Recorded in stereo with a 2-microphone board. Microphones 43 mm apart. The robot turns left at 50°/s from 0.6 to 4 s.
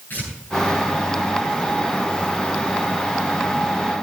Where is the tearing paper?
45° left (ahead or behind), 7 m.